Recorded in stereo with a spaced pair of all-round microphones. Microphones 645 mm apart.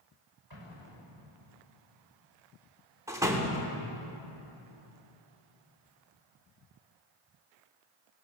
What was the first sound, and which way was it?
An explosion, 35° right (ahead or behind).